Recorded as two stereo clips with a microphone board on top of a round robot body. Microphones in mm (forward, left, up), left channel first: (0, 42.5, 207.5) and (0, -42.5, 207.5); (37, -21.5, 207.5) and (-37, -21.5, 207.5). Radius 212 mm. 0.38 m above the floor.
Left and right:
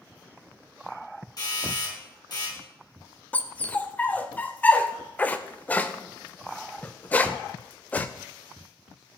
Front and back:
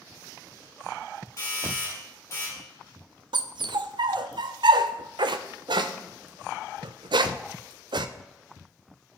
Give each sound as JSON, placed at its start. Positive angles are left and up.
{"t": 1.4, "sound": "a doorbell", "azimuth_deg": 50, "distance_m": 7.5}
{"t": 3.3, "sound": "a dog barking", "azimuth_deg": 165, "distance_m": 0.5}